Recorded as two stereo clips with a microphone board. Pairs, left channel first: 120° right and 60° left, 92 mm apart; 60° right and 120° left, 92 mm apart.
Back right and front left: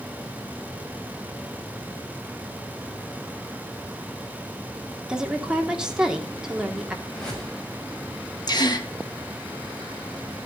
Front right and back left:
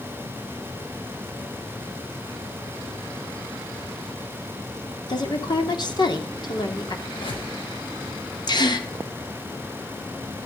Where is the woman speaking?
20° right, 2.5 m.